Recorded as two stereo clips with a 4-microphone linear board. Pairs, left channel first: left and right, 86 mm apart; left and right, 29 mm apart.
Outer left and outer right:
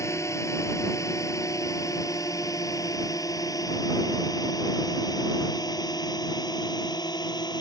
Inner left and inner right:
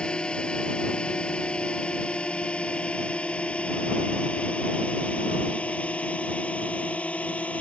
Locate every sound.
0.0 s a drone: 35° left (ahead or behind); by 7.6 s 55° left (ahead or behind)